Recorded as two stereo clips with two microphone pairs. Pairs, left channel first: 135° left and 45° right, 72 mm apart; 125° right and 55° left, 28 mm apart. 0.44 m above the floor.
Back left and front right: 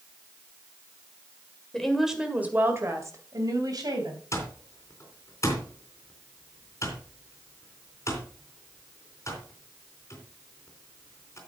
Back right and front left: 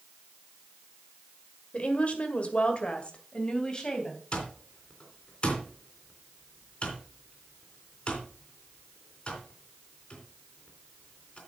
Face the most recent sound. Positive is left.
turn(degrees=-175)